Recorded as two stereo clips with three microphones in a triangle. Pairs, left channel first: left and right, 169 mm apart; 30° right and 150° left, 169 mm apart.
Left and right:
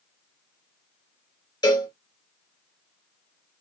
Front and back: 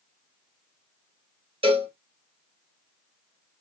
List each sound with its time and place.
1.6 s a cowbell: 135° left, 1.3 m